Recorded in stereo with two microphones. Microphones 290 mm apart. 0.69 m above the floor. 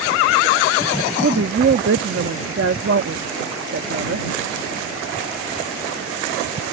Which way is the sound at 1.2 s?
50° right (ahead or behind).